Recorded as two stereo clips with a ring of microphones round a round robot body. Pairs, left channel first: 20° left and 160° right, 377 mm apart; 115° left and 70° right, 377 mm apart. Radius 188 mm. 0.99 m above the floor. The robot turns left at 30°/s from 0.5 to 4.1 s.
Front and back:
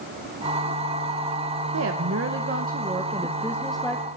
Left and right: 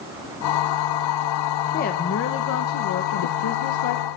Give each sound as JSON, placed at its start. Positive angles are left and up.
{"t": 1.7, "sound": "a woman speaking", "azimuth_deg": 170, "distance_m": 0.8}